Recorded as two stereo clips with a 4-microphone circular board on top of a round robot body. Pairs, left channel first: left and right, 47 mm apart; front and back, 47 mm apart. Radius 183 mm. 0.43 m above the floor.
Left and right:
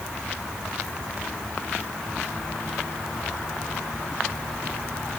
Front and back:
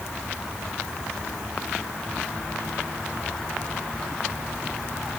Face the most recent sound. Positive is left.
No sound to turn to.